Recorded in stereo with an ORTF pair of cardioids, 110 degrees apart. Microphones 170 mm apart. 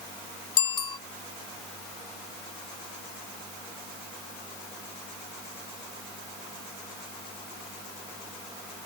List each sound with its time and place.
0.6 s a bicycle bell: 30° left